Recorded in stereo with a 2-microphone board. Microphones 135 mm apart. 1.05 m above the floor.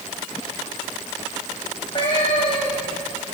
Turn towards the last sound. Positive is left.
turn(degrees=35)  # may be behind; listen again after turning